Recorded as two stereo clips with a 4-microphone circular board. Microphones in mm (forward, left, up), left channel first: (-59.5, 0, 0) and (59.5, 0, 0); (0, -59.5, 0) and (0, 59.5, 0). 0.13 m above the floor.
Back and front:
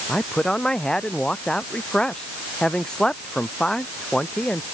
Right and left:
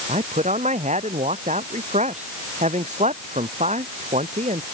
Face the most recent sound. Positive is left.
turn(degrees=95)